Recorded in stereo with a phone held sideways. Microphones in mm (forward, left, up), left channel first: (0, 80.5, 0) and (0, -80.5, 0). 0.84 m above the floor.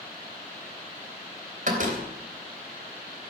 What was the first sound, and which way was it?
A door slam, 60° right (ahead or behind).